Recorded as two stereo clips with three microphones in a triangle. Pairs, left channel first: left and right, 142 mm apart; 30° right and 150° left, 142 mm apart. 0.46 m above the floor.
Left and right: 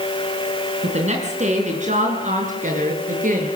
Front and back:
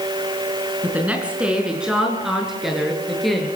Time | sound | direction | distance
0.8 | a woman speaking | 130° right | 5.5 m